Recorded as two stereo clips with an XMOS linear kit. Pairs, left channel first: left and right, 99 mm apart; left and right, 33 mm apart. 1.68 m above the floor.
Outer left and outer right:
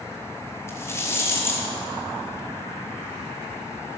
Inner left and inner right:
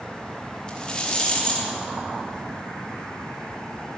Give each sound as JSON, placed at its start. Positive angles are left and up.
{"t": 0.7, "sound": "a rattle", "side_deg": 30, "distance_m": 4.5}